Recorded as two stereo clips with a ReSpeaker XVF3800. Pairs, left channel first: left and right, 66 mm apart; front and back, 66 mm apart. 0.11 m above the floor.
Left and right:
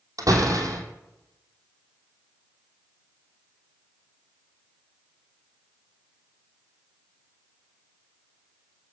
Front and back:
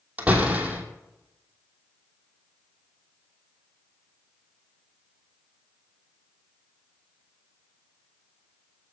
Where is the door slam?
110° right, 2.5 m.